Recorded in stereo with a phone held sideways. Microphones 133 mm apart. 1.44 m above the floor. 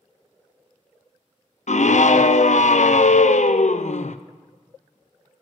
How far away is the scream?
About 0.5 m.